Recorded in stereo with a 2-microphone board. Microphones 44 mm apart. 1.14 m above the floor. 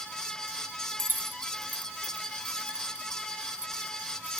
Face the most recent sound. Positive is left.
turn(degrees=-10)  # may be behind; listen again after turning